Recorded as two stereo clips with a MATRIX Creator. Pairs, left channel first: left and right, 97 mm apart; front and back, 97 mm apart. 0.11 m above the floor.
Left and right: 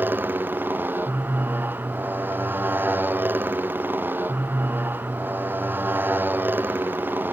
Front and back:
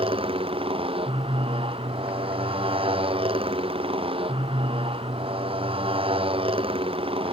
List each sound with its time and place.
0.0 s a motorcycle: 160° right